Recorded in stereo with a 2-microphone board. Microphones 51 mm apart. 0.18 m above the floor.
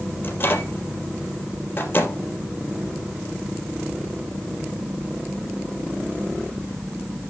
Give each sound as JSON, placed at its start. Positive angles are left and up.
{"t": 0.2, "sound": "a microwave", "side_deg": 45, "distance_m": 3.5}